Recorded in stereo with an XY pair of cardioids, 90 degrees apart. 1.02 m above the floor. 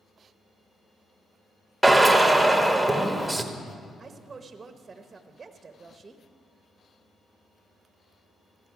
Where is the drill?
5° right, 1.2 m.